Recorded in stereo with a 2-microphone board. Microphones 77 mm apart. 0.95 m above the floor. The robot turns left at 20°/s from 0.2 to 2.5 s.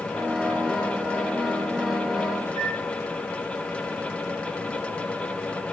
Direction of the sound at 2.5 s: 50° left (ahead or behind).